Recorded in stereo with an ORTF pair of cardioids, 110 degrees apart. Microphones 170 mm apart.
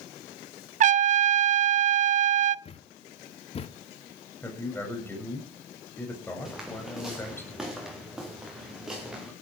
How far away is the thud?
About 1.2 m.